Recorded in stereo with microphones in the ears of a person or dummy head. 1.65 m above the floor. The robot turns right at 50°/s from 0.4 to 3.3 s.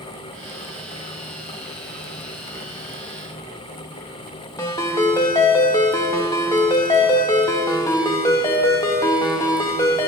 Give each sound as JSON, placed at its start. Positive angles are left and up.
{"t": 4.6, "sound": "a ringtone", "side_deg": 15, "distance_m": 1.0}